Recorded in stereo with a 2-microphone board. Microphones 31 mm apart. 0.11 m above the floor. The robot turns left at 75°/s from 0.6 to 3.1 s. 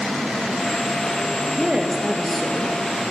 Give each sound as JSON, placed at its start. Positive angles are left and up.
{"t": 1.6, "sound": "a woman speaking", "azimuth_deg": -125, "distance_m": 2.0}